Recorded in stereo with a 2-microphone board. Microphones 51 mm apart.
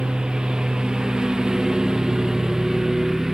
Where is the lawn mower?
15° right (ahead or behind); by 3.3 s 10° right (ahead or behind).